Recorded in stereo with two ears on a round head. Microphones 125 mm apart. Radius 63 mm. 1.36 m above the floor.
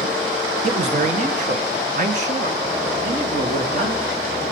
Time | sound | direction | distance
0.6 | a man speaking | 45° right (ahead or behind) | 1.0 m